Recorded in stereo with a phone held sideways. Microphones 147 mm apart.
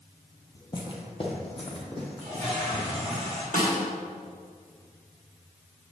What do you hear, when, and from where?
0.6 s footsteps: 30° left (ahead or behind), 1.2 m; by 3.2 s 40° left (ahead or behind), 3.5 m
2.2 s a toilet flushing: 40° left (ahead or behind), 3 m
3.5 s a snare drum: 60° left (ahead or behind), 2 m